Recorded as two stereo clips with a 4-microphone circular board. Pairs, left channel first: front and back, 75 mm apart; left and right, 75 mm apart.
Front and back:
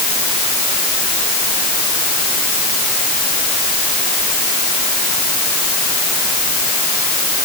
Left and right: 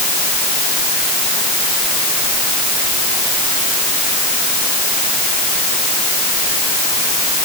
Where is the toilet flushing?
I don't hear a toilet flushing.